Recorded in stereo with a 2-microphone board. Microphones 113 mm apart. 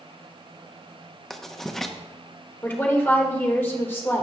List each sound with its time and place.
1.3 s writing: 5° left (ahead or behind), 0.7 m
2.6 s a woman speaking: 20° left (ahead or behind), 1.9 m